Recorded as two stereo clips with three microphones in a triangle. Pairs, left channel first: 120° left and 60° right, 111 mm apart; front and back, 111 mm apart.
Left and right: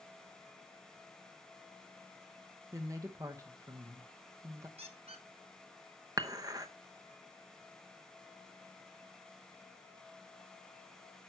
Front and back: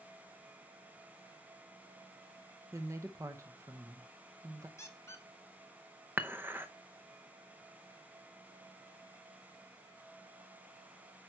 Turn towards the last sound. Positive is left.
turn(degrees=-110)